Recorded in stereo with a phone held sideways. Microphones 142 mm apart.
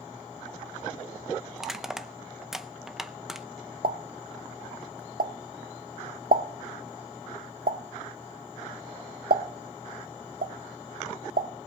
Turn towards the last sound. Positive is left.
turn(degrees=-85)